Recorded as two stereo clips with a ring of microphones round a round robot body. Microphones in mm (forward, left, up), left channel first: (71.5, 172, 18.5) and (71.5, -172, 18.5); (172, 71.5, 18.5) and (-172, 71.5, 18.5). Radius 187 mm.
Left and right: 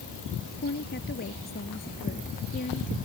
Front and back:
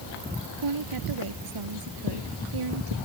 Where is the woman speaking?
155° left; by 3.0 s 160° left.